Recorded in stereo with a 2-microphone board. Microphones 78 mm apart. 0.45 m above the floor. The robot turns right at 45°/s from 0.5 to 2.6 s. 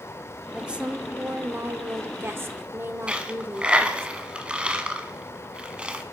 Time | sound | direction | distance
0.5 | a woman speaking | 165° right | 1.2 m
3.1 | a dropped coin | 15° right (ahead or behind) | 1.6 m